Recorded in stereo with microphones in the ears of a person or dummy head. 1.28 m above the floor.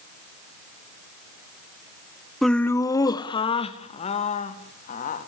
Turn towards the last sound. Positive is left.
turn(degrees=50)  # may be behind; listen again after turning